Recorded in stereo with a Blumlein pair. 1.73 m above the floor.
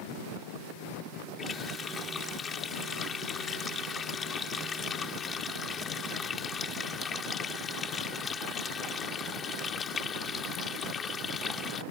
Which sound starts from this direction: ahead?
A running tap, at 1.4 s.